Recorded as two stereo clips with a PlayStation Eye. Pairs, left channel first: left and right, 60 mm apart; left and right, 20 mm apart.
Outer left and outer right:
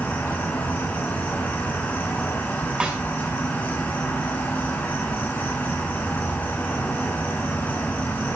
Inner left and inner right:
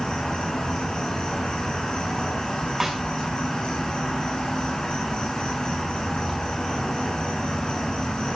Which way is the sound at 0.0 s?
30° left (ahead or behind).